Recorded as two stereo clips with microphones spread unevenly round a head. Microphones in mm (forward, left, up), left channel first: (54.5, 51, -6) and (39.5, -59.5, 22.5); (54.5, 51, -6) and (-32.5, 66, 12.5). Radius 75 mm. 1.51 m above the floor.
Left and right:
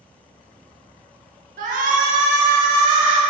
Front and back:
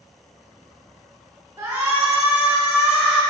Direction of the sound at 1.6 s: 120° right.